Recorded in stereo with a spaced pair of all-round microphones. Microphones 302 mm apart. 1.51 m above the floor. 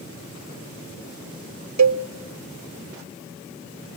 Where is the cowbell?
65° right (ahead or behind), 0.6 m.